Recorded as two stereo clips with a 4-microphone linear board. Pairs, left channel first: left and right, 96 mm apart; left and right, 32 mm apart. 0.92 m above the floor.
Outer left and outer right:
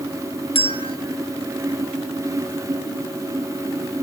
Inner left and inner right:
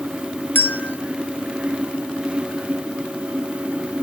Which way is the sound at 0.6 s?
75° left (ahead or behind).